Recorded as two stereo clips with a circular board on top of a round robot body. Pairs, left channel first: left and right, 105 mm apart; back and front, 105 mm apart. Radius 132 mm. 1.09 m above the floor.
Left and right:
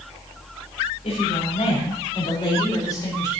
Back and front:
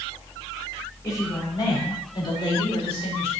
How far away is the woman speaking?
About 6 m.